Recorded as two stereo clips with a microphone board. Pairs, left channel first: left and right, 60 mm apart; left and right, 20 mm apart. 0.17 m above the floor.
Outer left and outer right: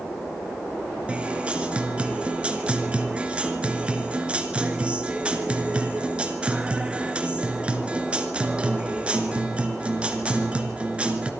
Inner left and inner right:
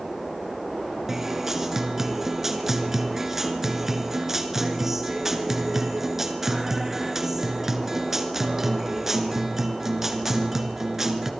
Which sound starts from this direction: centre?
A guitar, at 1.1 s.